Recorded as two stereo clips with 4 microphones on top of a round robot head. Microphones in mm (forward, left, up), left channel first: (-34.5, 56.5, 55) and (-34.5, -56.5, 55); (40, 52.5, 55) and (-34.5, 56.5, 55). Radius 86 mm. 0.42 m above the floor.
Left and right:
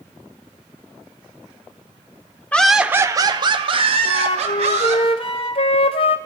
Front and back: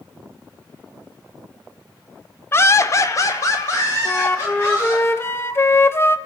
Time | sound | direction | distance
2.5 | laughter | 20° left | 0.9 m
4.0 | a flute | 50° left | 0.9 m